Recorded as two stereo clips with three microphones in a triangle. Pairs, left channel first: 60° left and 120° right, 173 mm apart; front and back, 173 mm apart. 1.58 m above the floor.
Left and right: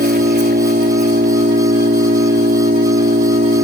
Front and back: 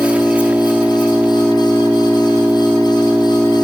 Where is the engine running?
95° right.